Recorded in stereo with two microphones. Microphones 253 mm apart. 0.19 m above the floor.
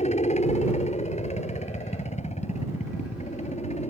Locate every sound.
0.0 s a helicopter: 25° left (ahead or behind)